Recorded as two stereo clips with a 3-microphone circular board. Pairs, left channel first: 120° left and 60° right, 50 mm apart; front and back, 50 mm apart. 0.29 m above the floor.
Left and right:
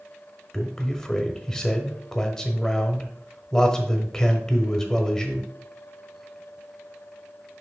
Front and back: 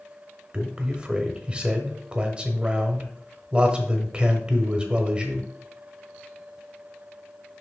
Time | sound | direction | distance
0.5 | a man speaking | 175° left | 1.0 m